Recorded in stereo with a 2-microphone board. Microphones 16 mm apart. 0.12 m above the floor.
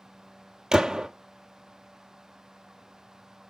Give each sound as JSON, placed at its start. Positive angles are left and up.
{"t": 0.7, "sound": "a gunshot", "side_deg": -55, "distance_m": 0.9}